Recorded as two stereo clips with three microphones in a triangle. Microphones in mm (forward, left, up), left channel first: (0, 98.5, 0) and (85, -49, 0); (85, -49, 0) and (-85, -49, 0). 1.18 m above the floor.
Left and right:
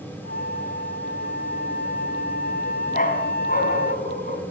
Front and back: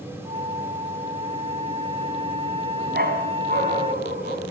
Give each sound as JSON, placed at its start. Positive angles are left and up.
{"t": 0.2, "sound": "a flute", "azimuth_deg": 125, "distance_m": 0.6}
{"t": 2.9, "sound": "a dog barking", "azimuth_deg": 155, "distance_m": 3.0}